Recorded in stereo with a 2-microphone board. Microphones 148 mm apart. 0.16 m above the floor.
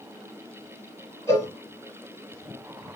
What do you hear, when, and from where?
1.3 s a cowbell: 20° left (ahead or behind), 1.3 m